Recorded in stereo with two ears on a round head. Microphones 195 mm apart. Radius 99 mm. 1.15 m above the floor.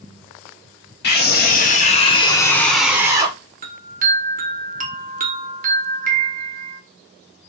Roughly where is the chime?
Right.